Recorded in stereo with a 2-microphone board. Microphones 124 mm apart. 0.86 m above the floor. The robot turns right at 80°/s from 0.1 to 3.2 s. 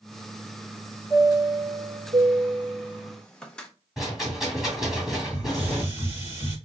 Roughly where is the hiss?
Centre.